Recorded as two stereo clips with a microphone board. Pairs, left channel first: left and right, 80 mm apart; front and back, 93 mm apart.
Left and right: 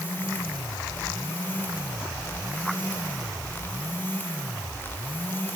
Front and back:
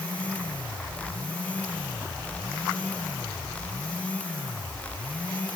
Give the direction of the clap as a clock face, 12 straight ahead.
I don't hear a clap.